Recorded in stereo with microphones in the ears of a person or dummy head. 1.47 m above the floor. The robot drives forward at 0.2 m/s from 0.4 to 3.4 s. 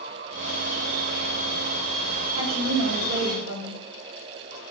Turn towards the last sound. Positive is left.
turn(degrees=-65)  # may be behind; listen again after turning